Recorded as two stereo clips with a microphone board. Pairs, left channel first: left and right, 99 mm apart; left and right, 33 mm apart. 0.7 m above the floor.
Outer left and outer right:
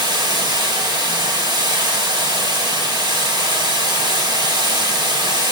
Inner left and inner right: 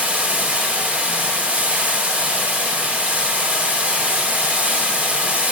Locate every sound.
0.0 s running water: 50° right (ahead or behind), 1.1 m